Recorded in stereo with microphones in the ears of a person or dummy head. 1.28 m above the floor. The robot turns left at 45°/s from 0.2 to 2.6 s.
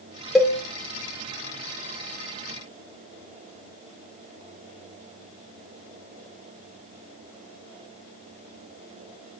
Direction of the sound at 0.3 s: 5° left (ahead or behind).